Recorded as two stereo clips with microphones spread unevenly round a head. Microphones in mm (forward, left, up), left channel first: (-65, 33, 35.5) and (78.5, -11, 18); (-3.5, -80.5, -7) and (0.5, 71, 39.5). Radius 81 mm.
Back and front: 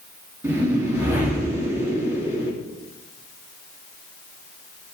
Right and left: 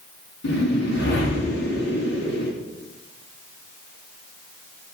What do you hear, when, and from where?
0.4 s a whoosh: 95° right, 3.5 m